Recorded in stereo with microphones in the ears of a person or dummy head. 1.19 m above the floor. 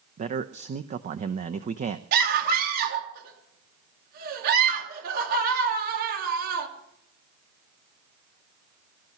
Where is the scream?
60° right (ahead or behind), 2.5 m.